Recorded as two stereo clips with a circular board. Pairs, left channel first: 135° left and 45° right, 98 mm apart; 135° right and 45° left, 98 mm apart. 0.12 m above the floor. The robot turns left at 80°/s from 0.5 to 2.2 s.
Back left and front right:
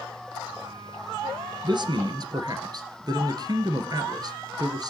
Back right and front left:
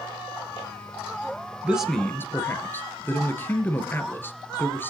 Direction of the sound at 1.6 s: 25° right.